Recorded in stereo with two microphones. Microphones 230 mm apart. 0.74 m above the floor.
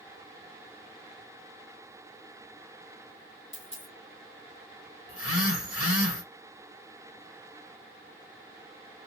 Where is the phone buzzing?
70° left (ahead or behind), 1.1 m.